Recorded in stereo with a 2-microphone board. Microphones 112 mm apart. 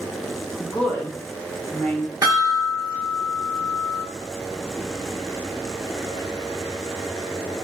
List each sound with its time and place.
0.6 s a woman speaking: 10° left (ahead or behind), 0.7 m
2.2 s a chime: 30° right (ahead or behind), 1.3 m